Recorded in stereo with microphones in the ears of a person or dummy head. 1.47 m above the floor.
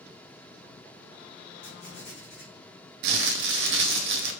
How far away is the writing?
About 1.4 m.